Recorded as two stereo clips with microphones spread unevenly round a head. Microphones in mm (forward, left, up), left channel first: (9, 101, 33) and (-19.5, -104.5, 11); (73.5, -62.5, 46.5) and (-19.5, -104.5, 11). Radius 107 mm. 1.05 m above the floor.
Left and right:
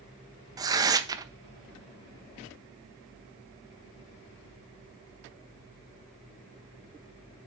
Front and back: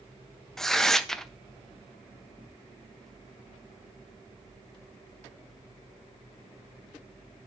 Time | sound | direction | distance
0.6 | tearing paper | 105° right | 0.6 m